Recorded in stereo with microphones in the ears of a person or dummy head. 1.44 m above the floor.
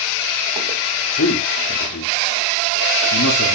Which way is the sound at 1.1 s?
65° left (ahead or behind).